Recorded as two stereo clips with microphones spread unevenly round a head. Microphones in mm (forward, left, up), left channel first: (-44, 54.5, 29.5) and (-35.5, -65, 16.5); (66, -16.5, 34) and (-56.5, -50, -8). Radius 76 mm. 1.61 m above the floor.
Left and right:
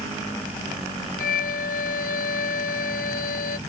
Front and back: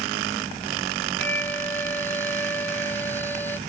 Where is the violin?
90° left.